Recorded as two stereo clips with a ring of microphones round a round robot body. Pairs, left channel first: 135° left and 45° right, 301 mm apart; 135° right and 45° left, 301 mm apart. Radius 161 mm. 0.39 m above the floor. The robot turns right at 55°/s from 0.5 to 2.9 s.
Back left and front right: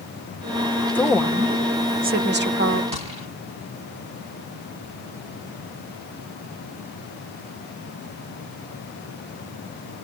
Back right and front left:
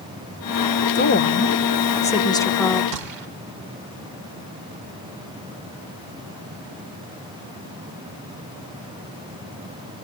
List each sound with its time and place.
0.9 s a woman speaking: 145° right, 1.1 m; by 2.8 s 40° right, 1.1 m
2.9 s a gunshot: 25° left, 2.5 m